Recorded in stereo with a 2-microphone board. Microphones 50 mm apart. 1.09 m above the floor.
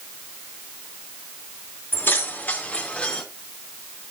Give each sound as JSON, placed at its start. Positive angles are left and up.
{"t": 1.9, "sound": "keys jangling", "side_deg": 45, "distance_m": 2.0}